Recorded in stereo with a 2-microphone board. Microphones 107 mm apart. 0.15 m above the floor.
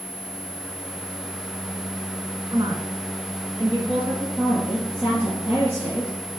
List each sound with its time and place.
2.5 s a woman speaking: 40° right (ahead or behind), 2 m; by 4.2 s 50° right (ahead or behind), 3.5 m
4.3 s a woman speaking: 20° right (ahead or behind), 3.5 m